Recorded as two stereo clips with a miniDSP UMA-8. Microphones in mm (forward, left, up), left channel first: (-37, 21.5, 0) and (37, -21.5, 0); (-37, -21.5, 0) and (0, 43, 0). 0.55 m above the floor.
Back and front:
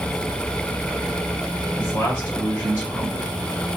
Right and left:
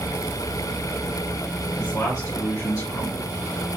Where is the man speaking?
150° right, 1.9 m.